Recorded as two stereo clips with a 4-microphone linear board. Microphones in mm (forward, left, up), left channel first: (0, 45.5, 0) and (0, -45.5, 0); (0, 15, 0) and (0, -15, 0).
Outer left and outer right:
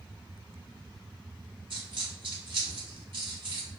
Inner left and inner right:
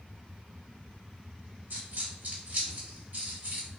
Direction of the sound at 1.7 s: 70° right (ahead or behind).